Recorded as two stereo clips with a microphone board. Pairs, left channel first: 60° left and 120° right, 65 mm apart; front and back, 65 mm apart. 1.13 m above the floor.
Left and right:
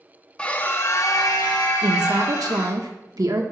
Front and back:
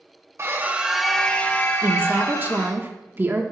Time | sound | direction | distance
0.4 | a scream | 130° left | 1.1 m
1.8 | a woman speaking | 125° right | 1.2 m